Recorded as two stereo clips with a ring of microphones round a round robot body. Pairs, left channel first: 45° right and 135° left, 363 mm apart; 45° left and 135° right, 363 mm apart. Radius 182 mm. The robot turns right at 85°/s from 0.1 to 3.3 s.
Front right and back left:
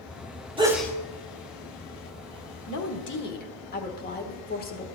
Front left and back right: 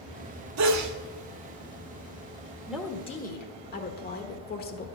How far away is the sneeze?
About 1.2 m.